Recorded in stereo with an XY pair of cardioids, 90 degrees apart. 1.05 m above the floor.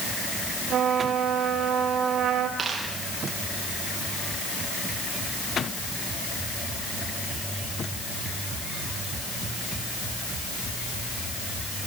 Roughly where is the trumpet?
Right.